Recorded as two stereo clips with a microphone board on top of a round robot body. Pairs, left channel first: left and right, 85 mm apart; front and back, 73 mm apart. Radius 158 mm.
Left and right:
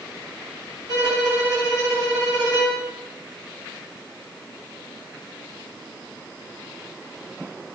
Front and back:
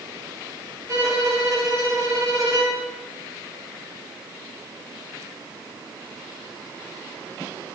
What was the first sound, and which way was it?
A violin, 135° right.